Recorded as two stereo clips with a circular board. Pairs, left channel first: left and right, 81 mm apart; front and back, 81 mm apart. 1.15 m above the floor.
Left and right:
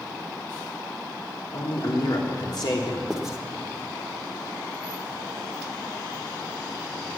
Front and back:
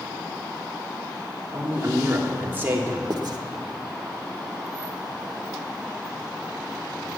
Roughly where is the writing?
Behind.